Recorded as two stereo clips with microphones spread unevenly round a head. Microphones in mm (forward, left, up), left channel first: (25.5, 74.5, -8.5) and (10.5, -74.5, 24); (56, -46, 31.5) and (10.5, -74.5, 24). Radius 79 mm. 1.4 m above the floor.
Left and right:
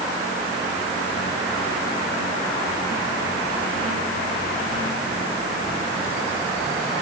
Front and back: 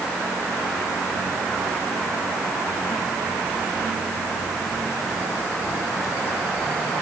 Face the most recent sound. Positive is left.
No sound to turn to.